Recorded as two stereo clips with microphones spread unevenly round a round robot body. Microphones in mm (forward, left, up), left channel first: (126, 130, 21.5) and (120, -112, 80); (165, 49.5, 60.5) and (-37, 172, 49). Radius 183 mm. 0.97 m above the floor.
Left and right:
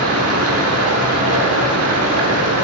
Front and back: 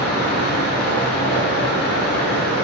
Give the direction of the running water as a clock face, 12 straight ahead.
2 o'clock.